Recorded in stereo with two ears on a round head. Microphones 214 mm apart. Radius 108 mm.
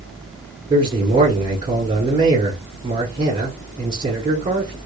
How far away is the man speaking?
About 1.4 m.